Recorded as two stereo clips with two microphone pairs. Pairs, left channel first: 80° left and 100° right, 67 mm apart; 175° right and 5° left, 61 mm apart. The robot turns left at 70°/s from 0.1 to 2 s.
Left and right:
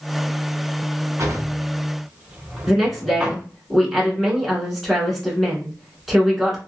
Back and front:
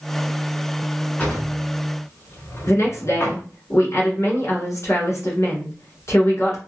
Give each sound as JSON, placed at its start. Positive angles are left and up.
{"t": 1.2, "sound": "a drawer", "azimuth_deg": -115, "distance_m": 1.2}
{"t": 2.7, "sound": "a woman speaking", "azimuth_deg": 175, "distance_m": 1.8}